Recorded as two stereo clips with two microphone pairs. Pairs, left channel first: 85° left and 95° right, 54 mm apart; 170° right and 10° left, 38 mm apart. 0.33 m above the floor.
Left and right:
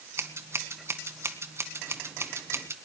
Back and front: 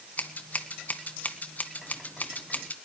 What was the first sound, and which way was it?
Scissors, 125° right.